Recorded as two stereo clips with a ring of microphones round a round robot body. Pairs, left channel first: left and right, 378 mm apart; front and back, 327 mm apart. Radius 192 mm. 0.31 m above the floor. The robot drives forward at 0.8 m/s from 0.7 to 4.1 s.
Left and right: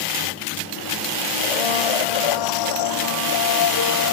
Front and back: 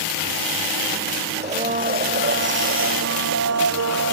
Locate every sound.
1.4 s a blender: 110° left; by 4.1 s 140° left